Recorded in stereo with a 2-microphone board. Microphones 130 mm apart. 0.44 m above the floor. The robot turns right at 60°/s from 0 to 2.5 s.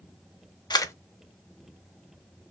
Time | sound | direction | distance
0.7 | a camera shutter | 30° left (ahead or behind) | 0.6 m